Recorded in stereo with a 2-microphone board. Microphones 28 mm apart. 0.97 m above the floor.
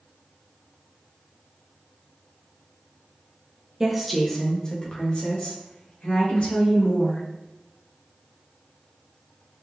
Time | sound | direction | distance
3.8 | a woman speaking | 15° right (ahead or behind) | 0.6 m